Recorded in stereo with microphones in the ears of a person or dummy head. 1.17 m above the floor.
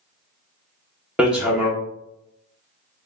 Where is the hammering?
5° right (ahead or behind), 0.7 m.